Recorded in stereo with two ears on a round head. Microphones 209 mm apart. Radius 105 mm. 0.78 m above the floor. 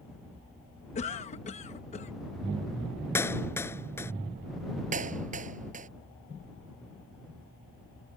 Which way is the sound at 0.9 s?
30° left (ahead or behind).